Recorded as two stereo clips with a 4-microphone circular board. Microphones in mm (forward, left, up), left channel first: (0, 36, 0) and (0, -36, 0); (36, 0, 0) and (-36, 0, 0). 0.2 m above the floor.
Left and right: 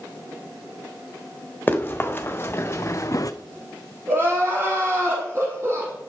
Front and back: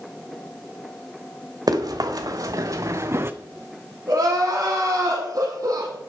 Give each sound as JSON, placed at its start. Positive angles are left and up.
{"t": 1.7, "sound": "running footsteps", "azimuth_deg": 155, "distance_m": 2.0}
{"t": 4.1, "sound": "crying", "azimuth_deg": -145, "distance_m": 5.5}